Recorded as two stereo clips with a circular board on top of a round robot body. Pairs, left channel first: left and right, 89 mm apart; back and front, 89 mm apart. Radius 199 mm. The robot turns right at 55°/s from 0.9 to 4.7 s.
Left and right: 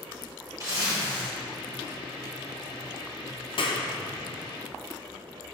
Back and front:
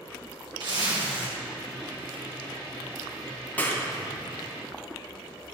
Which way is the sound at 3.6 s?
105° left.